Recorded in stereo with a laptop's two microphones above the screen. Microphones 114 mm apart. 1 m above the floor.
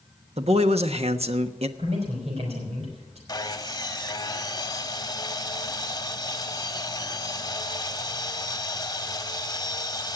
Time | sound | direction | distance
0.4 | a man speaking | 65° right (ahead or behind) | 1.1 m
1.8 | a man speaking | 70° right (ahead or behind) | 5 m
3.3 | sawing | 35° left (ahead or behind) | 1.0 m